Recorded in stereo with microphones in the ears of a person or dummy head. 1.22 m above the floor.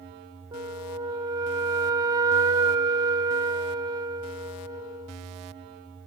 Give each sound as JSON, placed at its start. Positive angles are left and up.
{"t": 0.5, "sound": "a flute", "side_deg": -20}